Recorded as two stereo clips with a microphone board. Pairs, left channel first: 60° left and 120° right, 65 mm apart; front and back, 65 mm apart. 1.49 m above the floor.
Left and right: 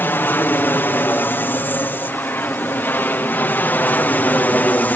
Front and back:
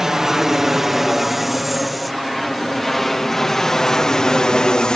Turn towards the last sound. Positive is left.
turn(degrees=60)